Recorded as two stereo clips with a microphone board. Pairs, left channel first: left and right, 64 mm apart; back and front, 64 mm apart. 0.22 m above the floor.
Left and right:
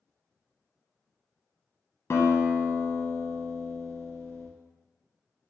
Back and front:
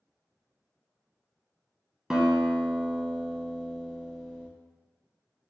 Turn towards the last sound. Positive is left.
turn(degrees=80)